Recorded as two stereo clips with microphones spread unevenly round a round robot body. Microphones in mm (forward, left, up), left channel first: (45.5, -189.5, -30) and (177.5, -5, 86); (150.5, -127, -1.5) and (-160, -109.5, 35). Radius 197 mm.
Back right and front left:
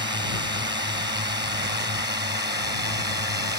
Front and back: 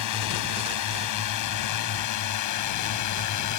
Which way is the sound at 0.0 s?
Straight ahead.